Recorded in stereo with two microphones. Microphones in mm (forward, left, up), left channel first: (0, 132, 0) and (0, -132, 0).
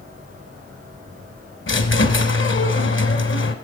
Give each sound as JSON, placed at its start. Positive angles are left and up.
{"t": 1.7, "sound": "a squeak", "side_deg": 50, "distance_m": 0.9}